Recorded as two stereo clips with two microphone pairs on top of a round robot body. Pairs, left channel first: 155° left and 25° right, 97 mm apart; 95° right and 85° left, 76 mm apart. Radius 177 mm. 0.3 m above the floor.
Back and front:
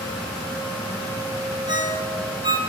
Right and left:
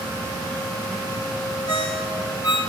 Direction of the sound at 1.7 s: 70° right.